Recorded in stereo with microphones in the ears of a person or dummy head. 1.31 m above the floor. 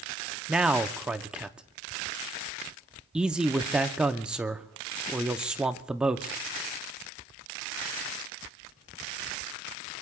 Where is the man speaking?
5° right (ahead or behind), 0.6 m.